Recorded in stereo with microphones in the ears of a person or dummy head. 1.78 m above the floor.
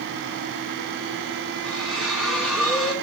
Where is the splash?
Centre (ahead or behind), 2.0 m.